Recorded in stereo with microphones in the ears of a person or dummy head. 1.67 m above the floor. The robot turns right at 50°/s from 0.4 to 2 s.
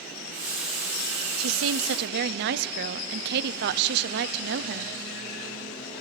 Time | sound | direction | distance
1.4 | a woman speaking | 90° right | 0.8 m